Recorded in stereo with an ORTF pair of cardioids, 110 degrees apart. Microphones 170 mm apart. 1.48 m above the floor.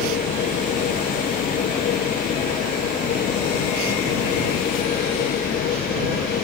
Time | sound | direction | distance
0.0 | a machine running | 60° left | ?